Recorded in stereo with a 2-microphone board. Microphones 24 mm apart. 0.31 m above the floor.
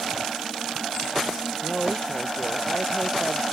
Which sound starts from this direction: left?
A woman speaking, at 1.6 s.